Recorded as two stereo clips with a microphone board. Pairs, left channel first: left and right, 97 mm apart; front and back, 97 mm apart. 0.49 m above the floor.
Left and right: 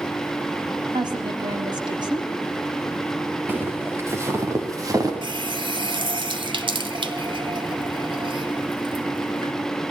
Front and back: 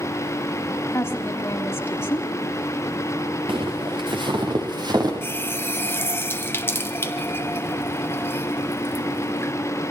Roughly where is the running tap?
Ahead right.